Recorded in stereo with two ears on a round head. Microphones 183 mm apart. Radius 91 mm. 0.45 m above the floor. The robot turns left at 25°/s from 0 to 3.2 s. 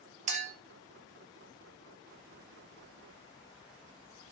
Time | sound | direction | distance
0.3 | a clink | 35° right (ahead or behind) | 0.7 m